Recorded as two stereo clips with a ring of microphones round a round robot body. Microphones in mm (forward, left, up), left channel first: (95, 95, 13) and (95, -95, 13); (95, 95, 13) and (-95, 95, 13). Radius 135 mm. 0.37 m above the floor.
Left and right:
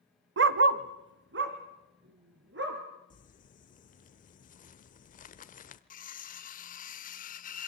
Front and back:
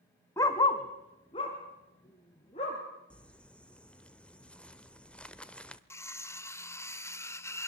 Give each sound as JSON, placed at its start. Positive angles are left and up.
{"t": 0.4, "sound": "a dog barking", "azimuth_deg": -80, "distance_m": 0.8}
{"t": 3.1, "sound": "crumpling", "azimuth_deg": 80, "distance_m": 1.1}
{"t": 5.9, "sound": "cutlery clinking", "azimuth_deg": 70, "distance_m": 0.8}